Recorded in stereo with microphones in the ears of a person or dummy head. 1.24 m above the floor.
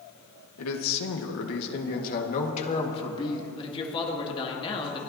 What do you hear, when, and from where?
0.6 s a man speaking: 80° left, 1.5 m; by 3.5 s 20° left (ahead or behind), 1.9 m
3.6 s a man speaking: 25° left (ahead or behind), 2 m